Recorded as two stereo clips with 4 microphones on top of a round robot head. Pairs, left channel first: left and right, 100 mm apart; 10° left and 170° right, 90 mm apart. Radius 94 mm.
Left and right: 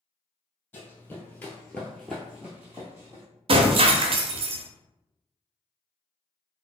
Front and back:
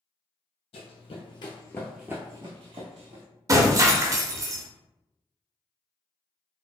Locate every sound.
0.7 s running footsteps: 20° left, 1.1 m; by 3.2 s 165° right, 1.2 m
3.5 s breaking glass: 115° right, 0.6 m